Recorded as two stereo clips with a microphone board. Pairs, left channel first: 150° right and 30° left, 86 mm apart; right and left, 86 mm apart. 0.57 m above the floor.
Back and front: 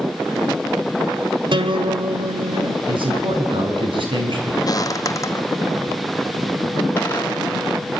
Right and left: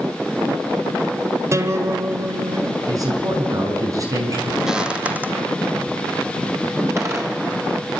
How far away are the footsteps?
About 1.1 m.